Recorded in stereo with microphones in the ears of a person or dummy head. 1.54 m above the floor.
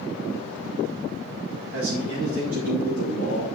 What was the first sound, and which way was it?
A man speaking, 70° right (ahead or behind).